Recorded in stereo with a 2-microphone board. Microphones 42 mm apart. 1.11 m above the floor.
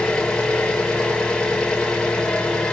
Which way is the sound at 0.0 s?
15° left (ahead or behind).